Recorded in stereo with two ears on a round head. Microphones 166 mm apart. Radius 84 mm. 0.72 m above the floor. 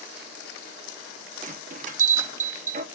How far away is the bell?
About 0.9 m.